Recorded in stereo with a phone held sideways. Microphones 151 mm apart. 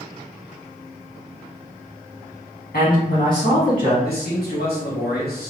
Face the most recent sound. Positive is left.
turn(degrees=80)